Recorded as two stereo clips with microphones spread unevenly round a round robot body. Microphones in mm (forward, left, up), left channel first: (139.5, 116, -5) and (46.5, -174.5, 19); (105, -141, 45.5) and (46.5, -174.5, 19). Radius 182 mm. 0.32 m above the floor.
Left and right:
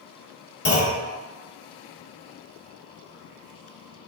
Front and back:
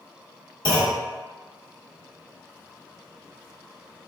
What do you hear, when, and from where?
0.7 s a clunk: 25° left, 1.0 m